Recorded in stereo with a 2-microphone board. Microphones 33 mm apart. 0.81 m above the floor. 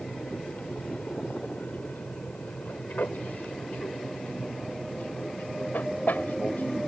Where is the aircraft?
60° left (ahead or behind).